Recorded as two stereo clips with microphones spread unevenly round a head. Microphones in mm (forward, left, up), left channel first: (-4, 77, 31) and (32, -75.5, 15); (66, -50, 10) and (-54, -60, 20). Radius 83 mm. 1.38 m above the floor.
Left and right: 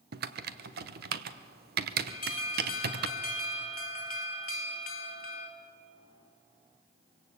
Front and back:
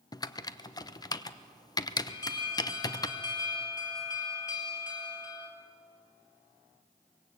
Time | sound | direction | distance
0.1 | typing on a keyboard | 55° right | 1.0 m
2.1 | an alarm | 75° left | 2.5 m